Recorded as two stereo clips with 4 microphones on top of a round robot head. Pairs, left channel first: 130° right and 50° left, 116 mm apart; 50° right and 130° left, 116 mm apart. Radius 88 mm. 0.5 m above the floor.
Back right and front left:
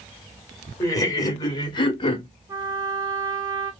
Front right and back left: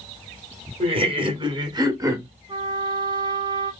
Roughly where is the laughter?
Behind.